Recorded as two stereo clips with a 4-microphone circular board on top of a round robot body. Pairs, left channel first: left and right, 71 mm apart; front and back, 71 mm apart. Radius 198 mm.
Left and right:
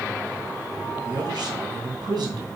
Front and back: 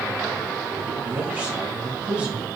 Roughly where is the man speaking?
Right.